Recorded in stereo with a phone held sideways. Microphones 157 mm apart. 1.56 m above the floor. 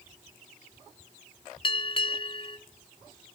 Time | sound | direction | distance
1.6 | a bell | 35° left (ahead or behind) | 0.5 m